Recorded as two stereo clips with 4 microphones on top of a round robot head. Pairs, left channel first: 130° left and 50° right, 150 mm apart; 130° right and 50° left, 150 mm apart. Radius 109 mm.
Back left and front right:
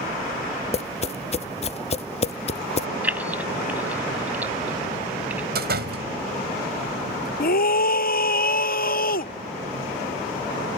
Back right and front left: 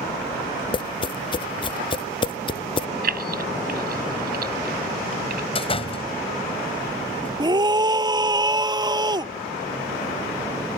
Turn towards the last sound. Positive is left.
turn(degrees=115)